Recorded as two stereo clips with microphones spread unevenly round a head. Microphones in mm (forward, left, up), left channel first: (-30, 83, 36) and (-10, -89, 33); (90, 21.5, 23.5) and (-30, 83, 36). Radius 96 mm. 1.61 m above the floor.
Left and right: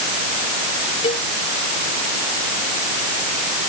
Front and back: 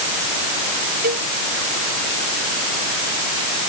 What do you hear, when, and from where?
1.0 s a cowbell: 155° left